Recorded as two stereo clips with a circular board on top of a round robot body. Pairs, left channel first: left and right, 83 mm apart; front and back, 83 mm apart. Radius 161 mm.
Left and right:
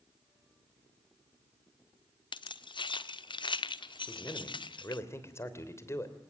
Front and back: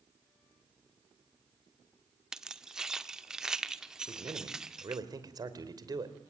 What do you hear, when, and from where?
2.3 s keys jangling: 100° left, 1.1 m
4.1 s a man speaking: 145° left, 3 m